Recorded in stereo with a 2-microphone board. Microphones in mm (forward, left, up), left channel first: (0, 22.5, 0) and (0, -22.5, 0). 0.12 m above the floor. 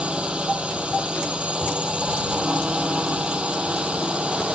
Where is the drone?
25° right (ahead or behind).